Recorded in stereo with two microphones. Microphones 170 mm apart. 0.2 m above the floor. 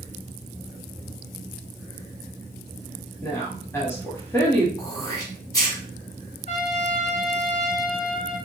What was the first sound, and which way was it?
A woman speaking, 15° left (ahead or behind).